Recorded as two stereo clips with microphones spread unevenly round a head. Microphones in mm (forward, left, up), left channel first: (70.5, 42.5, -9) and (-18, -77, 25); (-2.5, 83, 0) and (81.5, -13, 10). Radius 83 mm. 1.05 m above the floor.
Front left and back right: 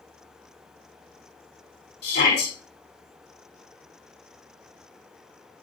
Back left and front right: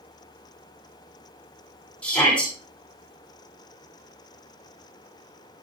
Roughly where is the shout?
Ahead left.